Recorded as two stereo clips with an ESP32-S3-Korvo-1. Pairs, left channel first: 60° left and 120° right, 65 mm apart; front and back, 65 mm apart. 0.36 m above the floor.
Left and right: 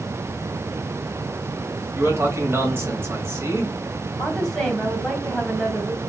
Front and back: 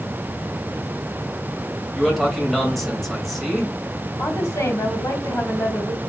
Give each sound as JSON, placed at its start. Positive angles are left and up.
{"t": 1.9, "sound": "a man speaking", "azimuth_deg": -85, "distance_m": 2.0}
{"t": 4.2, "sound": "a woman speaking", "azimuth_deg": -25, "distance_m": 2.5}